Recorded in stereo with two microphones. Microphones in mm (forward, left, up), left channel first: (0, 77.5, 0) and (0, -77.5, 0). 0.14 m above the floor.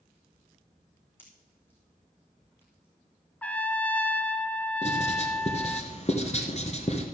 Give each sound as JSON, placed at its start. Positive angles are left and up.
{"t": 1.2, "sound": "a pop", "side_deg": 15, "distance_m": 3.0}
{"t": 3.4, "sound": "a trumpet", "side_deg": 10, "distance_m": 0.5}
{"t": 4.8, "sound": "writing", "side_deg": 45, "distance_m": 1.4}